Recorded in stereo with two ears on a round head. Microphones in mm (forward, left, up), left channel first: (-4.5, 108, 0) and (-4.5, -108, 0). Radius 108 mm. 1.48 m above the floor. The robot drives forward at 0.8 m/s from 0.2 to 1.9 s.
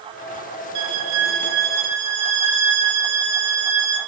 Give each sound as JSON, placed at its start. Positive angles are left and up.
{"t": 0.8, "sound": "a violin", "side_deg": -80, "distance_m": 0.5}